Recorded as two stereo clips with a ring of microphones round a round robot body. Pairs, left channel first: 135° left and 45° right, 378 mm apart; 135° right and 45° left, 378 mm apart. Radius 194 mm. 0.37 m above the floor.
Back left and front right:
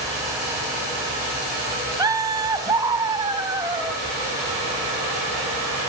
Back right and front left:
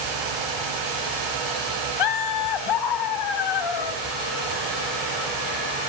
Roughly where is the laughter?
Behind right.